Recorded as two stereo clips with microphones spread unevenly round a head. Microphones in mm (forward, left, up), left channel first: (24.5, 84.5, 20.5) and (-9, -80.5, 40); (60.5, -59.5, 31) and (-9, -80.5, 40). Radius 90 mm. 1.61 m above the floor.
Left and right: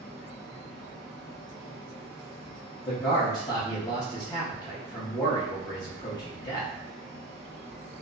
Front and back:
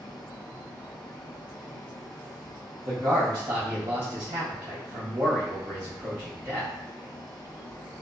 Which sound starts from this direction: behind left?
A man speaking, at 2.9 s.